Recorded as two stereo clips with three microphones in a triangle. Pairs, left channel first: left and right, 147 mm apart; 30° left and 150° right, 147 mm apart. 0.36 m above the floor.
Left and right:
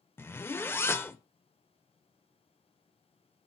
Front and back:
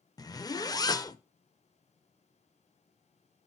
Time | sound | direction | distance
0.2 | a zipper | 40° left | 0.5 m